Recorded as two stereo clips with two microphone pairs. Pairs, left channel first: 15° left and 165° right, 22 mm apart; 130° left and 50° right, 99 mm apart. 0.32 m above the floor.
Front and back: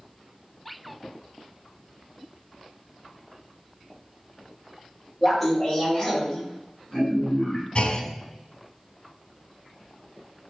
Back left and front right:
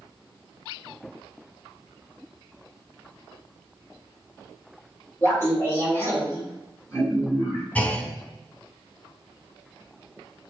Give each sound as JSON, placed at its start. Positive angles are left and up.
{"t": 5.2, "sound": "laughter", "azimuth_deg": 110, "distance_m": 1.4}
{"t": 7.8, "sound": "a clunk", "azimuth_deg": 55, "distance_m": 0.5}